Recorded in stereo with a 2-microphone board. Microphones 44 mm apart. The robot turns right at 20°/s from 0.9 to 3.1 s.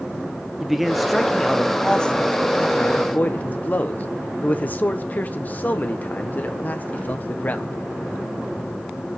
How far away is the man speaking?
About 1.2 m.